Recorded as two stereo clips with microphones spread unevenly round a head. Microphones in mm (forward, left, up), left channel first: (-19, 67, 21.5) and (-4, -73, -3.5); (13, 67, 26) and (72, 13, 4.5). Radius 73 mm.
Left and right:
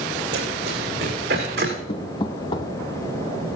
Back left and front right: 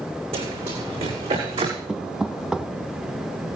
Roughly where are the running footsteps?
Ahead right.